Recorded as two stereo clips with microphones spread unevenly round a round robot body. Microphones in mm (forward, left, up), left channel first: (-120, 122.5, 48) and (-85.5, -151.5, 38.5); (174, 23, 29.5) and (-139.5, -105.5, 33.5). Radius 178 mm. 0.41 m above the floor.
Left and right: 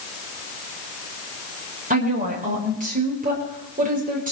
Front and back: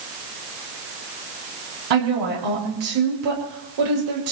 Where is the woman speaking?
145° right, 10 m.